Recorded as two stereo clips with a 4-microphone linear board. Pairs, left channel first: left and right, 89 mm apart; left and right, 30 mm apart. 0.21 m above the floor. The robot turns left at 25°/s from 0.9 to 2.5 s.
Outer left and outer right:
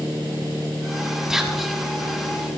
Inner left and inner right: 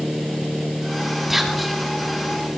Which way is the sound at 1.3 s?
5° right (ahead or behind).